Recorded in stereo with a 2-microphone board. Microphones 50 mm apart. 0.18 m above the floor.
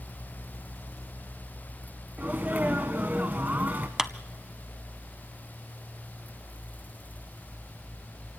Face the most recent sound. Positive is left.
turn(degrees=-10)  # may be behind; listen again after turning